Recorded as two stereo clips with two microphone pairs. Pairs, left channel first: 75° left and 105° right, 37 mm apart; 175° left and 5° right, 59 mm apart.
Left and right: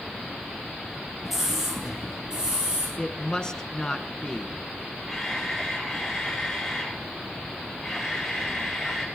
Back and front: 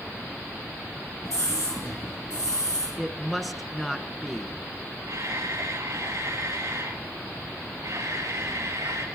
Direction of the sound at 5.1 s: 15° right.